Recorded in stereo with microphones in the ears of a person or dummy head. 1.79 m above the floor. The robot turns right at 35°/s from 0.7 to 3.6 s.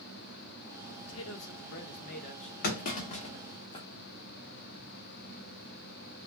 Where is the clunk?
45° left (ahead or behind), 0.8 m; by 3.9 s 20° left (ahead or behind), 0.8 m.